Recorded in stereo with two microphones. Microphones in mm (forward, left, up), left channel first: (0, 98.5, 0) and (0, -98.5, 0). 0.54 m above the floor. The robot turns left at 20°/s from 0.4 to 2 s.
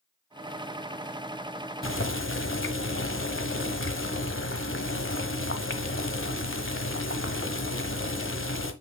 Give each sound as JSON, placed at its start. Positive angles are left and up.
{"t": 1.8, "sound": "boiling", "side_deg": 80, "distance_m": 1.1}